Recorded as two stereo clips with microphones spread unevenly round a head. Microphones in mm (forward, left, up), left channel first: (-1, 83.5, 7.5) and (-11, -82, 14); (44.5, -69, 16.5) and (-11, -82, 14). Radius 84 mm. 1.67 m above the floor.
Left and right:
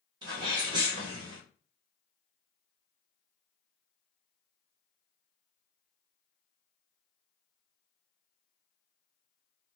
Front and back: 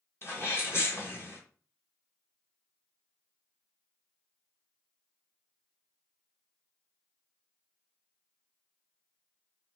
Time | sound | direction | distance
0.2 | a sneeze | 30° right | 1.5 m